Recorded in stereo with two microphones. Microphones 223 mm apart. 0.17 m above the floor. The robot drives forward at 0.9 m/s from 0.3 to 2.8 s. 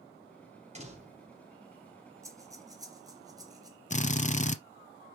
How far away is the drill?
About 0.6 m.